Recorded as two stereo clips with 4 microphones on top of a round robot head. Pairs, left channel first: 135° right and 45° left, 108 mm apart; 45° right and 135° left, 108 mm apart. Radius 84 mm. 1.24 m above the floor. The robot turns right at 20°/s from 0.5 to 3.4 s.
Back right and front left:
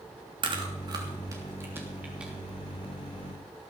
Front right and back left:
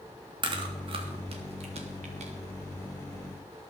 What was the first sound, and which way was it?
Chewing, 90° left.